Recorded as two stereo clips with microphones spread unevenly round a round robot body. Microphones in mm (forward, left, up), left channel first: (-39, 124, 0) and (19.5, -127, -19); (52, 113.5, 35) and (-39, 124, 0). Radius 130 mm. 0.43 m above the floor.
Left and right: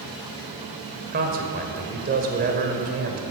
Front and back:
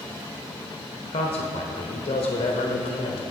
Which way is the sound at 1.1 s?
35° right.